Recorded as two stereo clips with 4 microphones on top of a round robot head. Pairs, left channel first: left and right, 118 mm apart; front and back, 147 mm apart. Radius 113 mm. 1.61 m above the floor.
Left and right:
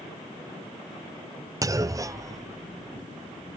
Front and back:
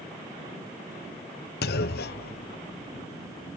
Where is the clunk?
25° right.